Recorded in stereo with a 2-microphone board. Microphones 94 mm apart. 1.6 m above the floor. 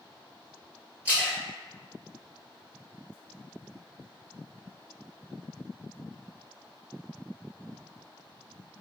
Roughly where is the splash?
Centre.